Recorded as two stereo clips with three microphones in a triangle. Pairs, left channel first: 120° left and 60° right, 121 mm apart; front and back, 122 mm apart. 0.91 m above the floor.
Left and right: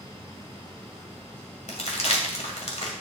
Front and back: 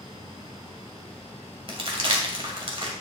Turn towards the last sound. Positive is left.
turn(degrees=140)